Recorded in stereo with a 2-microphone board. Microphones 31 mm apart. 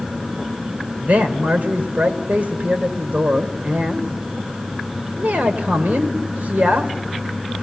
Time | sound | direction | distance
1.0 | a man speaking | 60° right (ahead or behind) | 1.9 m